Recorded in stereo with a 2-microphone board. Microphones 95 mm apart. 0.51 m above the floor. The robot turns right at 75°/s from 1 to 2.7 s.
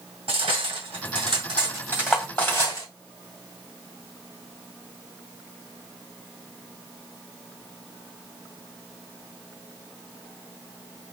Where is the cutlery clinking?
80° right, 2 m; by 2.9 s 40° left (ahead or behind), 2 m.